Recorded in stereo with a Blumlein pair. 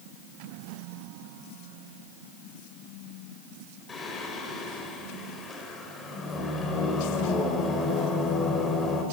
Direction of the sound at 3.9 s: 20° left.